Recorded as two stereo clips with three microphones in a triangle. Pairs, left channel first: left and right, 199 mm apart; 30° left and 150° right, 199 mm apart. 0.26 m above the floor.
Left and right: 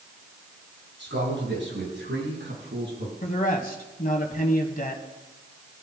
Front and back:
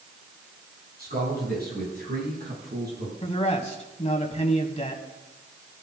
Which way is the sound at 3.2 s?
70° left.